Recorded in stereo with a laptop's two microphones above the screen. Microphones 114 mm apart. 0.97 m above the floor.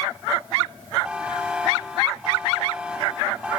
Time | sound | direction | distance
1.0 | a buzzer | 10° right (ahead or behind) | 1.5 m